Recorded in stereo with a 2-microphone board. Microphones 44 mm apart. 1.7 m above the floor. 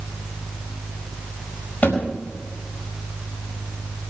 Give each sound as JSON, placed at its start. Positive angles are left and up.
{"t": 1.8, "sound": "a thud", "side_deg": 40, "distance_m": 4.5}